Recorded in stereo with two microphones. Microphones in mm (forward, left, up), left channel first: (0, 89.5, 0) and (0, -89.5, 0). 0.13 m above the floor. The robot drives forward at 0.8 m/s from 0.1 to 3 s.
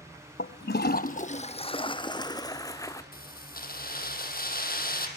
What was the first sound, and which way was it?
A toilet flushing, 75° left (ahead or behind).